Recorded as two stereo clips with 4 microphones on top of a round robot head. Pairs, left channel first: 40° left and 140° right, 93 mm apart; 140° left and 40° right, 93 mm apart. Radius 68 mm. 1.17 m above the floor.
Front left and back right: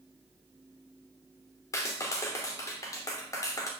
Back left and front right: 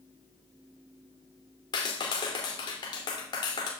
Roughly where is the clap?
Left.